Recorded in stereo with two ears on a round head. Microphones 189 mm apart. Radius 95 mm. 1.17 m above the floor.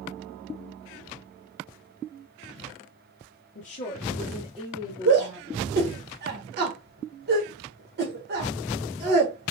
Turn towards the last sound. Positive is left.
turn(degrees=-50)  # may be behind; listen again after turning